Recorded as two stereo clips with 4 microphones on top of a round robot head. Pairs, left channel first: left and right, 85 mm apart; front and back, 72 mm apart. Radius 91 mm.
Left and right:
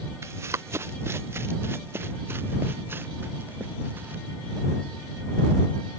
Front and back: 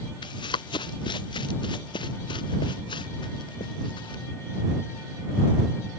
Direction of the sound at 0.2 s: 25° right.